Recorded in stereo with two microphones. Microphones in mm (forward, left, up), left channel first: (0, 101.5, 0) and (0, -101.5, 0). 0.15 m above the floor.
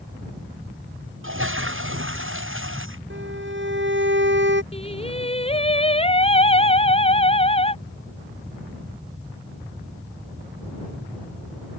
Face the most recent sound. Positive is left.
turn(degrees=30)  # may be behind; listen again after turning